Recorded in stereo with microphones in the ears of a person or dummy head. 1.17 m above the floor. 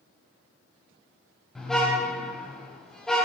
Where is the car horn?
5° left (ahead or behind), 4 m.